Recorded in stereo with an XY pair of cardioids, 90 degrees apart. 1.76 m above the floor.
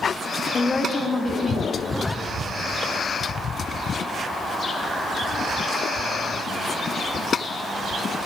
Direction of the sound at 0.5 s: 45° left.